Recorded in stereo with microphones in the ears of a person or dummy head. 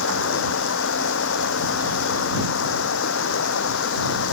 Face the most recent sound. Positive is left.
turn(degrees=70)  # may be behind; listen again after turning